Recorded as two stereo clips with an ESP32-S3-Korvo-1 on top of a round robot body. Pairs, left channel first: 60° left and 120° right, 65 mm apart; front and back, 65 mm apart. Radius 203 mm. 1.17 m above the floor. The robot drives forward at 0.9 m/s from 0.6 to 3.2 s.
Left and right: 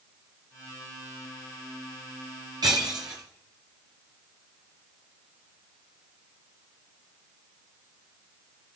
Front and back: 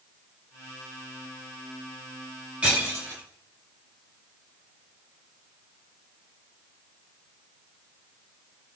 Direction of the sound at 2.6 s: 105° right.